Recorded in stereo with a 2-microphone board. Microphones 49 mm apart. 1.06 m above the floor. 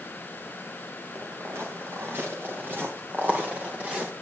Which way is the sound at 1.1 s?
60° right (ahead or behind).